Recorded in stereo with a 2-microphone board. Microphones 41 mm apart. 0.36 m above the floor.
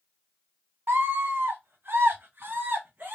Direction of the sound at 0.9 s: 70° right (ahead or behind).